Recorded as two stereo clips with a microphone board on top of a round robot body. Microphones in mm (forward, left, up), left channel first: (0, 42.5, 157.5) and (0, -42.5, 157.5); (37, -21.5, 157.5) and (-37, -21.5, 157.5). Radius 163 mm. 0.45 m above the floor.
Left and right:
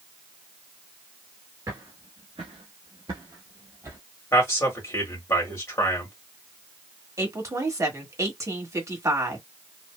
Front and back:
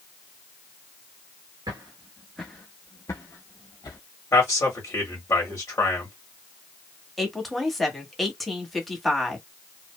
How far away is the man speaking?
About 1.9 m.